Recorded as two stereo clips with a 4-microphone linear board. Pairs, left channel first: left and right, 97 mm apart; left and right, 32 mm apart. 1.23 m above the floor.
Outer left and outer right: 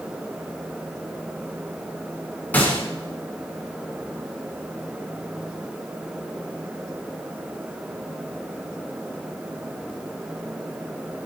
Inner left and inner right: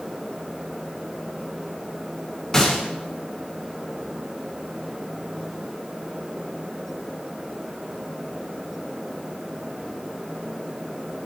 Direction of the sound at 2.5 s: 20° left (ahead or behind).